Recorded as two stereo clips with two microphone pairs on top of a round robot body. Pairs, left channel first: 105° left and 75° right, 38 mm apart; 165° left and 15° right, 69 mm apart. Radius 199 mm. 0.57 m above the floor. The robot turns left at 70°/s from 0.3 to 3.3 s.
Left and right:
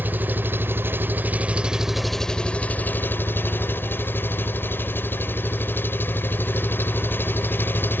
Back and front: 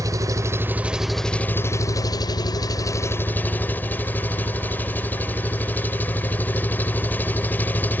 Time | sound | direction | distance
0.0 | an engine running | 45° right | ?